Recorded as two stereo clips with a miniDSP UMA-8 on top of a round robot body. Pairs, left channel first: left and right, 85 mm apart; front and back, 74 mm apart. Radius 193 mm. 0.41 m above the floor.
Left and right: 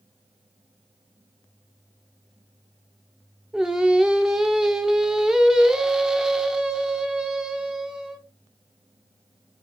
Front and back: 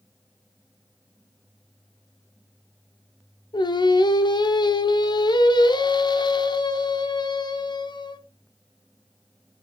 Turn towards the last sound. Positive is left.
turn(degrees=-5)